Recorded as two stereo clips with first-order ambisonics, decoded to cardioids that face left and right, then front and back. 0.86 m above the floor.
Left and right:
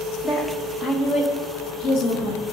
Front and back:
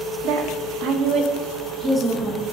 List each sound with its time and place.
0.2 s a woman speaking: 170° left, 1.6 m; by 2.4 s 90° left, 1.4 m